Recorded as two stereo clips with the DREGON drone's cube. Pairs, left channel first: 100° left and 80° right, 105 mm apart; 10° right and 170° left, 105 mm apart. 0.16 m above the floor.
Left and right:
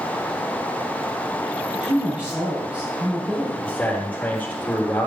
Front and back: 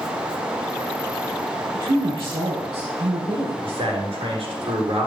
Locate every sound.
1.7 s a woman speaking: 155° right, 3.5 m
3.6 s a man speaking: 175° left, 3.5 m